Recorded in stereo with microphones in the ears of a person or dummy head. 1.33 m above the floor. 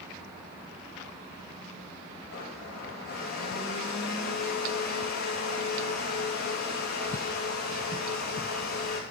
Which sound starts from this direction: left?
A blender, at 2.3 s.